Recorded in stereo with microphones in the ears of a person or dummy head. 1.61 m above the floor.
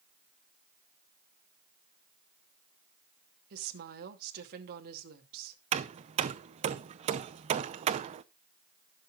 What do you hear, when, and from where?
3.5 s a woman speaking: 50° right (ahead or behind), 2.5 m
5.7 s hammering: 35° right (ahead or behind), 0.8 m